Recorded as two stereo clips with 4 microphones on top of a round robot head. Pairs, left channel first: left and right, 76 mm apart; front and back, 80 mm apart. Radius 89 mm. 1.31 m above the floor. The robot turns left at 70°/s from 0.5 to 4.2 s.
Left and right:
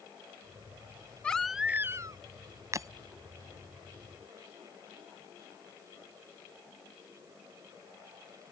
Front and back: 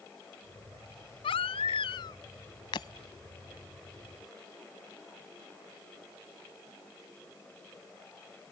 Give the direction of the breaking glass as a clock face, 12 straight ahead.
1 o'clock.